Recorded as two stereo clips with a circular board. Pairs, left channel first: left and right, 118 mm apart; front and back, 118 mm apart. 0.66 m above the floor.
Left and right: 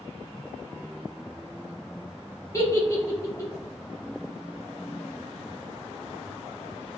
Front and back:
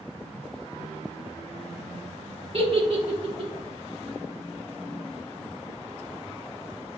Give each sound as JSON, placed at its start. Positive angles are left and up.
{"t": 2.5, "sound": "a giggle", "azimuth_deg": 150, "distance_m": 1.1}